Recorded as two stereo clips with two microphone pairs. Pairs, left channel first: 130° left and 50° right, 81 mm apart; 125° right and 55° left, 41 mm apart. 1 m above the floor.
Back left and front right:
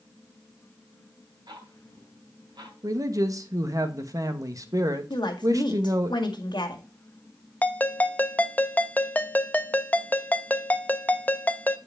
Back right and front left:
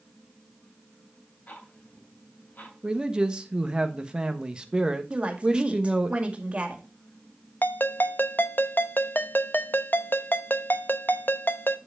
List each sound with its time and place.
1.5 s ticking: 80° right, 2.5 m
2.8 s a man speaking: 15° right, 1.1 m
5.1 s a woman speaking: 115° left, 2 m
7.6 s a ringtone: 165° right, 0.6 m